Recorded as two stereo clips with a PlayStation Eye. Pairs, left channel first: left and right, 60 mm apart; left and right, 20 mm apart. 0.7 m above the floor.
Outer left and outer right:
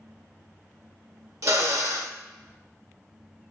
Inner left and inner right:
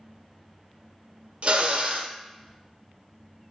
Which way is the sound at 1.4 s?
60° right (ahead or behind).